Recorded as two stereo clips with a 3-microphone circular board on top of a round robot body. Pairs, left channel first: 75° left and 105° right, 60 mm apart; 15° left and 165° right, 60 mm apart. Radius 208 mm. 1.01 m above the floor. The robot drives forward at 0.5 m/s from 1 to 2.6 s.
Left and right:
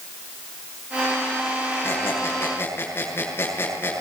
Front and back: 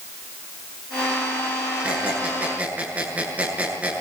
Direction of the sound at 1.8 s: 125° left.